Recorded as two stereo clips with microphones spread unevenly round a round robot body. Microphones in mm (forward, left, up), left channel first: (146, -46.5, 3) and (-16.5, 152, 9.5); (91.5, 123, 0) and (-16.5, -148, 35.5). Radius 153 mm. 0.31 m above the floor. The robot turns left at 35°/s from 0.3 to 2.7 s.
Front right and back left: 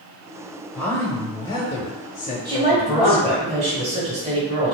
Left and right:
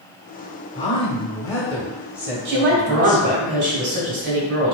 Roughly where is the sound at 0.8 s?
Ahead left.